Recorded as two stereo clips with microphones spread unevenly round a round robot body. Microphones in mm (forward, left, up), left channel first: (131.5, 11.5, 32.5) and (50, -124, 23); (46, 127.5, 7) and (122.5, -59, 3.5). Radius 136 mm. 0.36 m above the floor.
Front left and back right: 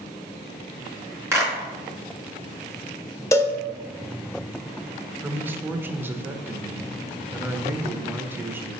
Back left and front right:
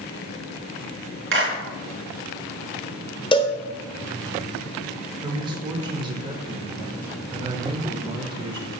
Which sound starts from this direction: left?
A cowbell, at 3.3 s.